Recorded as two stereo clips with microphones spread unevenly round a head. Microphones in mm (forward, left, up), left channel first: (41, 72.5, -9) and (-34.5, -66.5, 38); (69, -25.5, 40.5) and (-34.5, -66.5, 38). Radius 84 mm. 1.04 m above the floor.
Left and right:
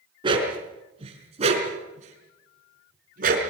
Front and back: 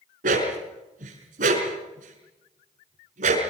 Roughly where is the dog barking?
Behind.